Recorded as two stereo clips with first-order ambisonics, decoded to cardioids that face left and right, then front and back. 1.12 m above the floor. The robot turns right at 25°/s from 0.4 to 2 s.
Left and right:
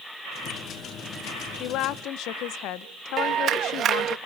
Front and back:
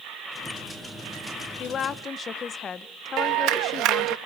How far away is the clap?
About 0.7 m.